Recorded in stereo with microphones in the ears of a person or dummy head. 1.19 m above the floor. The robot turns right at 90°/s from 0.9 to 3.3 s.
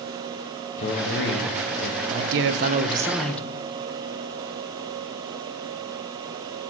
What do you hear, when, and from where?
0.8 s a man speaking: 40° left, 1.0 m; by 2.0 s 135° left, 1.0 m
2.1 s a man speaking: 95° right, 0.6 m; by 3.5 s 10° left, 0.6 m